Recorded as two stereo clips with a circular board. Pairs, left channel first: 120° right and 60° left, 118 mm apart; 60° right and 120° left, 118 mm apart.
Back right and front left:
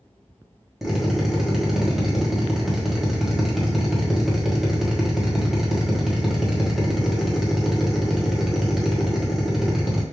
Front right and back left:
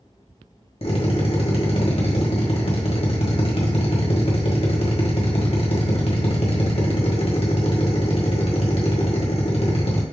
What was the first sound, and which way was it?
A drill, 25° right.